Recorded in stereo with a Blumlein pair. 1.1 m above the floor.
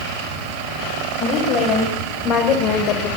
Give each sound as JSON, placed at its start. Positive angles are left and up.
{"t": 1.2, "sound": "a woman speaking", "azimuth_deg": 30, "distance_m": 7.0}